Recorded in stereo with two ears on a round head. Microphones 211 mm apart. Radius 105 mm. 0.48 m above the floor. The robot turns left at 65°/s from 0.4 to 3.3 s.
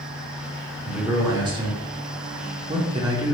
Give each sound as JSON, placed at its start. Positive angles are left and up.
{"t": 0.8, "sound": "a man speaking", "azimuth_deg": 5, "distance_m": 1.0}